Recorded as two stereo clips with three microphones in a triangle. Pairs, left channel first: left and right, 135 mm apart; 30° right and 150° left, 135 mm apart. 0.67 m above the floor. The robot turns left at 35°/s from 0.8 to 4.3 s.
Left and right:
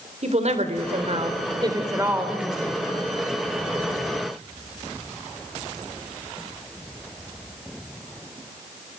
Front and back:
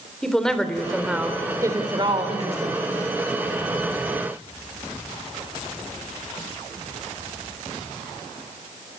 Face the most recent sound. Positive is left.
turn(degrees=120)